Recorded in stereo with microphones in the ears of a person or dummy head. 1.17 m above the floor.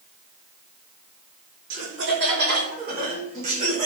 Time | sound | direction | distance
1.7 | laughter | 65° right (ahead or behind) | 3 m